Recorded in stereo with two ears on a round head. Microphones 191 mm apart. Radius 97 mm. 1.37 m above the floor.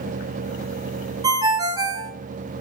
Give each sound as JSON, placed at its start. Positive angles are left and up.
{"t": 1.2, "sound": "a ringtone", "side_deg": -20, "distance_m": 1.1}